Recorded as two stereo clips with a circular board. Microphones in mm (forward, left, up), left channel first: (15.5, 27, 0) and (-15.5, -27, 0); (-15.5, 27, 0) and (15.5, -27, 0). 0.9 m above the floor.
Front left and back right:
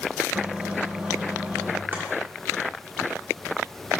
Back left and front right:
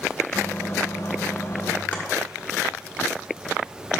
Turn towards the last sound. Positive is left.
turn(degrees=-175)